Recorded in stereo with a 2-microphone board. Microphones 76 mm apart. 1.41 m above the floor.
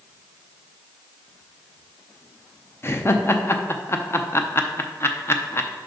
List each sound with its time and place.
2.8 s laughter: 30° left (ahead or behind), 0.6 m